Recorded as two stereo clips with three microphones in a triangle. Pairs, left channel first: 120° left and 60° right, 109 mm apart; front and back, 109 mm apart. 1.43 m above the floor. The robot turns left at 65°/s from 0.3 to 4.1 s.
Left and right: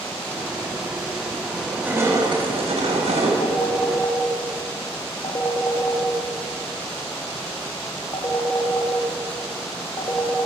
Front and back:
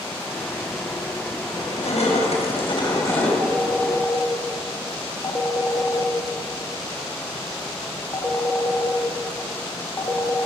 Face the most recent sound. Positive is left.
turn(degrees=65)